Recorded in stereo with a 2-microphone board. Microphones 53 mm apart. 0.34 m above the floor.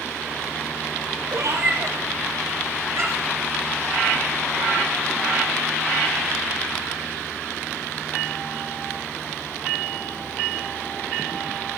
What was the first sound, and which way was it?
A cat meowing, 90° right.